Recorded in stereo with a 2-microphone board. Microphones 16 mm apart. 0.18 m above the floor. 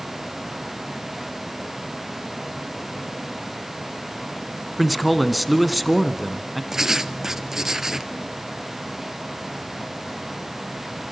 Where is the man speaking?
5° left (ahead or behind), 1.8 m.